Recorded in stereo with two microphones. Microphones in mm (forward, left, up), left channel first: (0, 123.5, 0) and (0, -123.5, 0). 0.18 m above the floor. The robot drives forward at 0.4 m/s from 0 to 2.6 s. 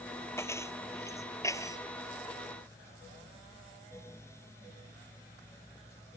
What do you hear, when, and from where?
0.4 s keys jangling: 10° left (ahead or behind); by 1.8 s 15° left (ahead or behind)